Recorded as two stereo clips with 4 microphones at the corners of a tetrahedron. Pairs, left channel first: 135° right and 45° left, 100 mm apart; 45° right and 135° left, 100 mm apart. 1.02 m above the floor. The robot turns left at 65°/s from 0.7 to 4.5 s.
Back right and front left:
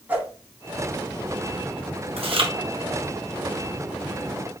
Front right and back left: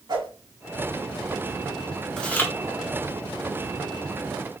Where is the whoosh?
115° left, 1.3 m.